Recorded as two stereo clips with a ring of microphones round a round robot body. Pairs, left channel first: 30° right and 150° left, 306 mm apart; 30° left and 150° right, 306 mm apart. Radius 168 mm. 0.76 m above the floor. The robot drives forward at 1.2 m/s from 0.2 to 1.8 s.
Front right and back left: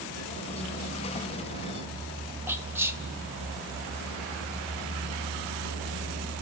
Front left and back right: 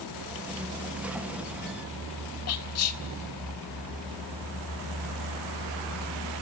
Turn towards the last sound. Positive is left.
turn(degrees=70)